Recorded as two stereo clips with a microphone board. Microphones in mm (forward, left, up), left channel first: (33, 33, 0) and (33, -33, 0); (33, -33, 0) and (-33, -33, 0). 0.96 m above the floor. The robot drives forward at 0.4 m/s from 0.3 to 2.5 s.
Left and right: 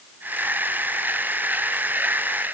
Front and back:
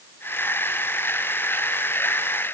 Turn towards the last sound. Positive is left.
No sound to turn to.